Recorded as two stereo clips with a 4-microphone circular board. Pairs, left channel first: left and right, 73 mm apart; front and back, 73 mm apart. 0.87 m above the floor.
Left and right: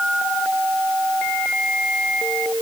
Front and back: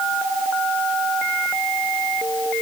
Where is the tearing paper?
I don't hear tearing paper.